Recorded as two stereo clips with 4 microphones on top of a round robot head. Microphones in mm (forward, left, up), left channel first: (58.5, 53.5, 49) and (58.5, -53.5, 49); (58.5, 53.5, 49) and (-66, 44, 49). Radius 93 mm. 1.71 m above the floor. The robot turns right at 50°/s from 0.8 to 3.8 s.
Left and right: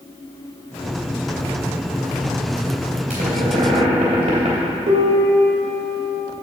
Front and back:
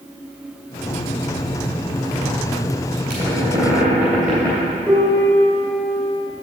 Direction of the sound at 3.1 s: 125° right.